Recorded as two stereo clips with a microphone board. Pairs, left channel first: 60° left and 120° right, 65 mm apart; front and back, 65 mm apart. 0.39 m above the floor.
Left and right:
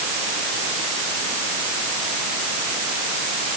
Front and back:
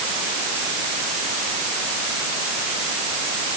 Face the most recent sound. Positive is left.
No sound to turn to.